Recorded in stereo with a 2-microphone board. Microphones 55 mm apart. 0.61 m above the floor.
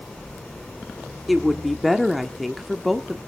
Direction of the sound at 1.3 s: Centre (ahead or behind).